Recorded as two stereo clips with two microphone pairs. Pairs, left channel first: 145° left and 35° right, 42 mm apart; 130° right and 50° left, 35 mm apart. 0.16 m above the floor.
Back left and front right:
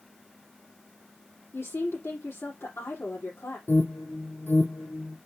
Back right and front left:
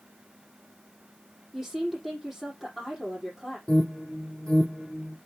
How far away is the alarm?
About 4.5 m.